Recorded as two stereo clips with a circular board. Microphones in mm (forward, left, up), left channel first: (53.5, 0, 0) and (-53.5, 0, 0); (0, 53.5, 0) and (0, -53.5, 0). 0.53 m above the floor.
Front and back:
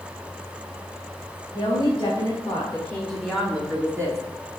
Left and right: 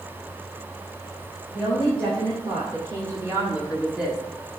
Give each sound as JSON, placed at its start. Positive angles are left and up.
{"t": 1.5, "sound": "a woman speaking", "azimuth_deg": -40, "distance_m": 2.0}